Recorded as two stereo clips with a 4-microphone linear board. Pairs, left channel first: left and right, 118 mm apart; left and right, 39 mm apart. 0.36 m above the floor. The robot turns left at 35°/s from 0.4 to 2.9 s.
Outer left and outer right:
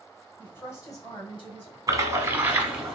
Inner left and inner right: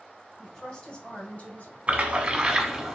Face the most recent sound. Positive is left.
turn(degrees=-165)